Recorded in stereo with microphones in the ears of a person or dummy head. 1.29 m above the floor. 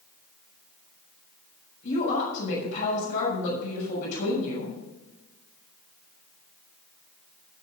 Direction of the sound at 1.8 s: 65° left (ahead or behind).